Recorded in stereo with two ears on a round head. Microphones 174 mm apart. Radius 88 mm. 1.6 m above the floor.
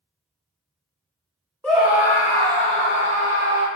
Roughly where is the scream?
Centre.